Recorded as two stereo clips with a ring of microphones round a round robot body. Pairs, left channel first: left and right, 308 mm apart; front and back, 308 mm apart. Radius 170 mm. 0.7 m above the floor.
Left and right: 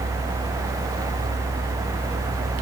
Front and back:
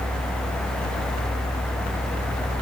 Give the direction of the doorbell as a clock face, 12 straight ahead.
No doorbell in this recording.